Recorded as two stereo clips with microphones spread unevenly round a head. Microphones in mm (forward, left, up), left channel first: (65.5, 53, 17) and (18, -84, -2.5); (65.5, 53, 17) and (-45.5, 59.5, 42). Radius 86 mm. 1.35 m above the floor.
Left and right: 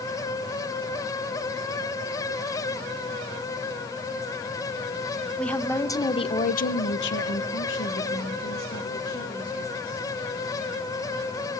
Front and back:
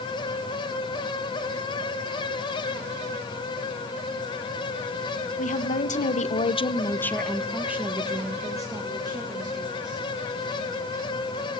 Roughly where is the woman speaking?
Ahead.